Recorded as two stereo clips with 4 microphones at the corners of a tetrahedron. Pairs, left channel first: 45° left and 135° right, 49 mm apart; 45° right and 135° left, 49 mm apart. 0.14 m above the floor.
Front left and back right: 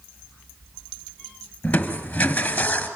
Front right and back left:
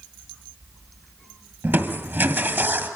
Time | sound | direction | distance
1.6 | crushing | 105° left | 2 m